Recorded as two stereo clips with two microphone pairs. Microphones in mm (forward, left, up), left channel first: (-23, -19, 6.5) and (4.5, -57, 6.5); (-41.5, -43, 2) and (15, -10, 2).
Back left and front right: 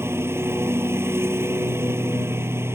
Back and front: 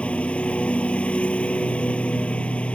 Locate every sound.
0.0 s a lawn mower: 80° right